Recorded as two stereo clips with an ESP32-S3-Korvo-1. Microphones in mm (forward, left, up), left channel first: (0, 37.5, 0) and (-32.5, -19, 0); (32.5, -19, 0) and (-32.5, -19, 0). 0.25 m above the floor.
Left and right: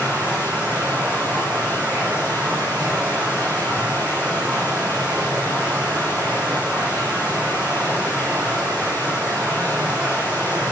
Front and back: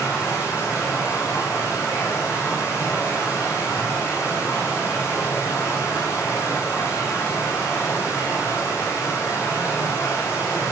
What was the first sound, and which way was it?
Running water, 50° right.